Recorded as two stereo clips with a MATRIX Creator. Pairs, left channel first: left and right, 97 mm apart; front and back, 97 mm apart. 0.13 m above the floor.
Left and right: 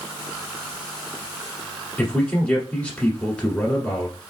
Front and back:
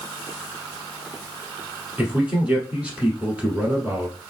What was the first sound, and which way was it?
A man speaking, 135° left.